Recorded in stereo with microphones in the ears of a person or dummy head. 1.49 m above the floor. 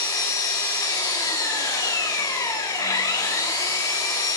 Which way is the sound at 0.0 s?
15° left (ahead or behind).